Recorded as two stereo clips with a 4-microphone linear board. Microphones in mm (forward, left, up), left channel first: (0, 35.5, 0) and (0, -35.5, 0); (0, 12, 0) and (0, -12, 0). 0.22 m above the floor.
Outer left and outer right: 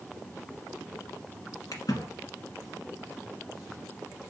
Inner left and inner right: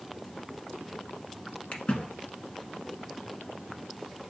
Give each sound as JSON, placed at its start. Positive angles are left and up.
{"t": 1.7, "sound": "a splash", "side_deg": 65, "distance_m": 1.1}